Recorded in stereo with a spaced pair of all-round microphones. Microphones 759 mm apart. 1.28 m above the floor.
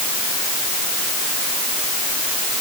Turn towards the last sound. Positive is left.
No sound to turn to.